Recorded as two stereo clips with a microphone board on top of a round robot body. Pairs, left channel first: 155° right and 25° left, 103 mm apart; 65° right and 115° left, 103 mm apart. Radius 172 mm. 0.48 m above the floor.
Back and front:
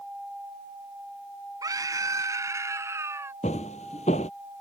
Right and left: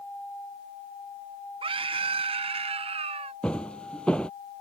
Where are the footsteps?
150° right.